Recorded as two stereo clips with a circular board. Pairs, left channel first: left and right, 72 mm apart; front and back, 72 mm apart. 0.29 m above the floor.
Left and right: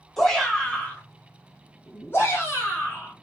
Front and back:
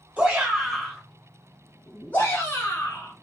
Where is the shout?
170° left, 1.2 m; by 3.1 s 50° left, 2 m.